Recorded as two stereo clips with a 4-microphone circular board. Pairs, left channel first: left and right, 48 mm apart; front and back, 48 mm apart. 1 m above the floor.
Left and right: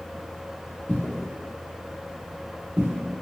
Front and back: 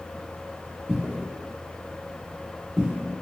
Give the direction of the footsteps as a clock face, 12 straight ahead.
8 o'clock.